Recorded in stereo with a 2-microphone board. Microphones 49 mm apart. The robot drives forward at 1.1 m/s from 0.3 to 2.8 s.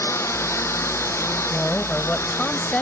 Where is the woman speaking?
25° left (ahead or behind).